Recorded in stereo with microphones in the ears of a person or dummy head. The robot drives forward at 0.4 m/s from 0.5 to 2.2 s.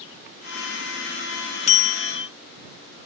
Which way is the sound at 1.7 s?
40° left (ahead or behind).